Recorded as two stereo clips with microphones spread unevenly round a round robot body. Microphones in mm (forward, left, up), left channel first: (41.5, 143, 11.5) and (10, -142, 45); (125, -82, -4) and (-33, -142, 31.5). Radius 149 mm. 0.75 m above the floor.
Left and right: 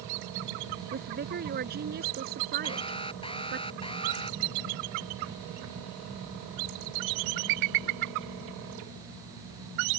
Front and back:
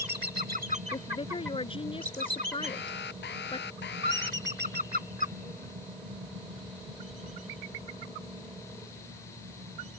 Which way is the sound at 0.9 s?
40° right.